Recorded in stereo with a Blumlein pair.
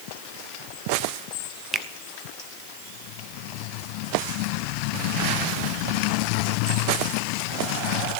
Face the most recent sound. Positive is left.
turn(degrees=-15)